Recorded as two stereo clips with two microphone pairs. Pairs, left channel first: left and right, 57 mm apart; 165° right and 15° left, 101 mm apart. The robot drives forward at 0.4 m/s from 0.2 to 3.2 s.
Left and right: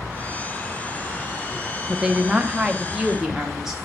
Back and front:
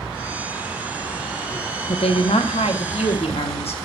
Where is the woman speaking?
160° right, 0.7 m; by 3.8 s 170° right, 1.2 m.